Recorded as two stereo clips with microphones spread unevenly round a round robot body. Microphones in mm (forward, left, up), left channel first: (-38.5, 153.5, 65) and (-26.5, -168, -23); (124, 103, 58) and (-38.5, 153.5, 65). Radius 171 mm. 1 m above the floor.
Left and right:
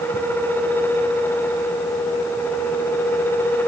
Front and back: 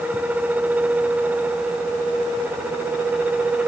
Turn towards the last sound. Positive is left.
No sound to turn to.